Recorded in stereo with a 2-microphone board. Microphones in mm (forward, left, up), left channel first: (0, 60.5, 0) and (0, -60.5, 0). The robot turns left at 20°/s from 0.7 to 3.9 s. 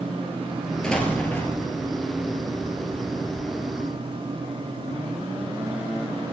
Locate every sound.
0.8 s an explosion: 5° left (ahead or behind), 2 m; by 1.7 s 25° left (ahead or behind), 2 m